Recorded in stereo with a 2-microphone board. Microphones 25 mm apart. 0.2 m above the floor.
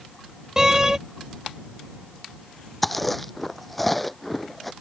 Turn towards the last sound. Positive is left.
turn(degrees=5)  # may be behind; listen again after turning